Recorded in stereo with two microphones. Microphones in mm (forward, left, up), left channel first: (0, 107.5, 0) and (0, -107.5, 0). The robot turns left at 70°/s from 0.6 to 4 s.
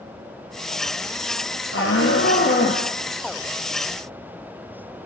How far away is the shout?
About 3 m.